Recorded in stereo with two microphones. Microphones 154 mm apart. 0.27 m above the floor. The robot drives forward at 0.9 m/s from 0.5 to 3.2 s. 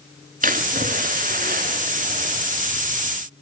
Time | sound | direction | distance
0.4 | a splash | 65° right (ahead or behind) | 4 m